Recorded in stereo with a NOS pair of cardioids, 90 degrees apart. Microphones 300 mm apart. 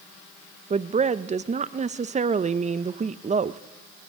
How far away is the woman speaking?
About 0.5 m.